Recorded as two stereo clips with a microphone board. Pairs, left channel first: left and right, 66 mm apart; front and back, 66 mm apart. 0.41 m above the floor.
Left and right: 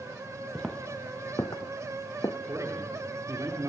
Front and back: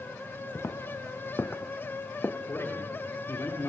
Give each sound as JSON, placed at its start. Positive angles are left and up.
{"t": 0.6, "sound": "footsteps", "azimuth_deg": 10, "distance_m": 0.5}
{"t": 2.5, "sound": "a man speaking", "azimuth_deg": -50, "distance_m": 6.0}